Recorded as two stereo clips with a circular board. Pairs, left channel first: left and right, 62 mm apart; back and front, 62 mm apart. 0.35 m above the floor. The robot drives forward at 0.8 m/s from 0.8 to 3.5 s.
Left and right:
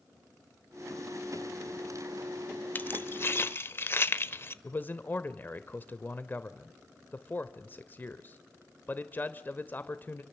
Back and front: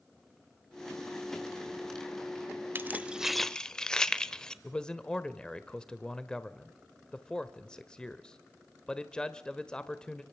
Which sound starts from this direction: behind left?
A man speaking, at 4.6 s.